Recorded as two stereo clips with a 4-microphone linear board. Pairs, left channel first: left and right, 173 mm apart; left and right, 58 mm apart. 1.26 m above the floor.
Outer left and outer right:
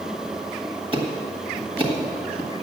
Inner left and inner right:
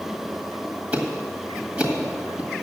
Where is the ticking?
30° right (ahead or behind), 1.6 m.